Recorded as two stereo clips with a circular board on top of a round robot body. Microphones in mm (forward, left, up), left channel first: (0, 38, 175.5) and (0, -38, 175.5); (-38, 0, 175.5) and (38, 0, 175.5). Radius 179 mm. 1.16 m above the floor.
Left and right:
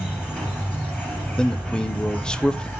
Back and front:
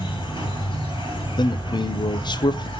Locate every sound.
0.0 s an insect: 165° left, 2.5 m
1.4 s a man speaking: 170° left, 0.7 m